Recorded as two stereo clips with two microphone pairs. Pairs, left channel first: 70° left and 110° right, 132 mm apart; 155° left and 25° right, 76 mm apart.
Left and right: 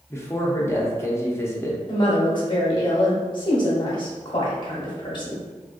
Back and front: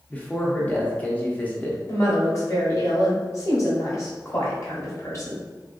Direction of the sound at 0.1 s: 110° left.